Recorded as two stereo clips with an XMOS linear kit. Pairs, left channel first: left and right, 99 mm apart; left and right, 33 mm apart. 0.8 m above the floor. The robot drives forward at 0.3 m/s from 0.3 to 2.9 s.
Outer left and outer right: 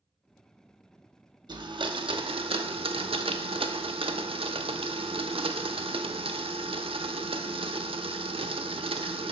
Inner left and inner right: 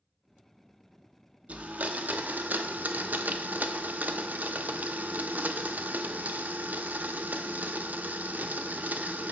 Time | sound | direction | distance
1.5 | a blender | 55° right (ahead or behind) | 0.6 m